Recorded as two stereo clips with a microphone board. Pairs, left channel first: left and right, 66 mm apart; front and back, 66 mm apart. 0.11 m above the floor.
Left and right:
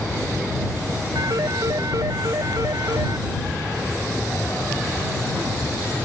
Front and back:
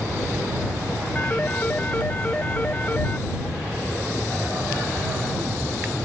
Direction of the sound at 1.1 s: 65° right.